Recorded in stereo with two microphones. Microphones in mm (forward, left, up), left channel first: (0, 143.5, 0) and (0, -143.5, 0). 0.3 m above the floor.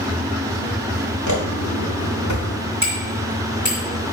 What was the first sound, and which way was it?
Footsteps, 85° left.